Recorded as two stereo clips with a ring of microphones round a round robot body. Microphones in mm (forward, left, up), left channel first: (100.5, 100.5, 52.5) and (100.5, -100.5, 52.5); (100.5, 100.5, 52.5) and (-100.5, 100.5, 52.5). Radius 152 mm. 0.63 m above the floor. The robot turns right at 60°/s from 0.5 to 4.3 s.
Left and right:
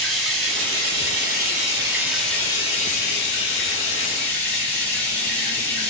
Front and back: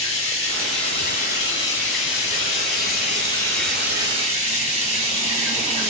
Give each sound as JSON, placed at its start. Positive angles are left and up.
{"t": 0.0, "sound": "running water", "azimuth_deg": -105, "distance_m": 2.0}